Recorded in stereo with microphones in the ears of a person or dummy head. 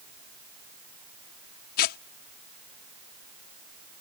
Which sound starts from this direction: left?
Tearing paper, at 1.8 s.